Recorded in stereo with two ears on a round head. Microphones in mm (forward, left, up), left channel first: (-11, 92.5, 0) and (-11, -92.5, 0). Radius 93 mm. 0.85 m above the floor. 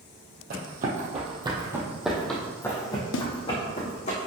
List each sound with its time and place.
0.5 s running footsteps: 45° right (ahead or behind), 1.9 m; by 4.1 s 35° left (ahead or behind), 3 m
3.1 s a snare drum: 65° left (ahead or behind), 0.6 m